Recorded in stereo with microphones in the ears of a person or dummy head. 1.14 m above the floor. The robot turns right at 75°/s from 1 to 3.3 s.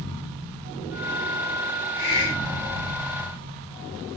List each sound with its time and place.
2.0 s a hiss: 125° left, 1.1 m; by 3.0 s 160° right, 1.1 m